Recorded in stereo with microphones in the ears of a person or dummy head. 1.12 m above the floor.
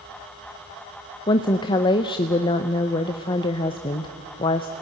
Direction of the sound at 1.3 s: 25° left (ahead or behind).